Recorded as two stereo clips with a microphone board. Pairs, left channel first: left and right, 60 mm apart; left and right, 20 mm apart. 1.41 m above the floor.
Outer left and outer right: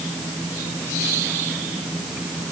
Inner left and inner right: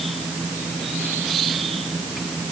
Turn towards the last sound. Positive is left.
No sound to turn to.